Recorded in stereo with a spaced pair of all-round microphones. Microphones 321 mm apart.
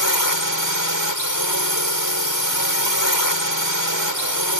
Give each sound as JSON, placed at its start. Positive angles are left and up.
{"t": 0.0, "sound": "a drone", "side_deg": 80}